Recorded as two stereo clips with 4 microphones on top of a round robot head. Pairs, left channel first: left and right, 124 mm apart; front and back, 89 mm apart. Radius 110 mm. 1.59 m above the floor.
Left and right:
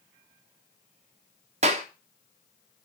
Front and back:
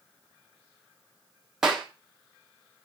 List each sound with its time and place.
1.6 s a clap: 95° right, 0.8 m